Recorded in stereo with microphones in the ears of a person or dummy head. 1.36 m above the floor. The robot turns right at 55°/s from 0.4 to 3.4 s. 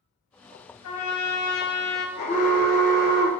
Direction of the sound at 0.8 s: 80° left.